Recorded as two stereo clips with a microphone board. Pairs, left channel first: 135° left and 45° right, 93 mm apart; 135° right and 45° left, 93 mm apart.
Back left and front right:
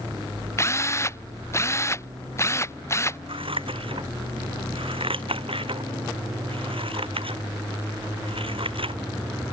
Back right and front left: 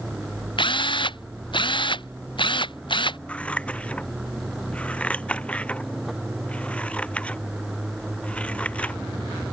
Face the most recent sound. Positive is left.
turn(degrees=-60)